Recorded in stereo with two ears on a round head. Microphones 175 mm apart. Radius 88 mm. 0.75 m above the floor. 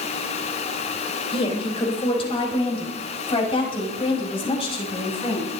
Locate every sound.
1.3 s a woman speaking: 25° left (ahead or behind), 4 m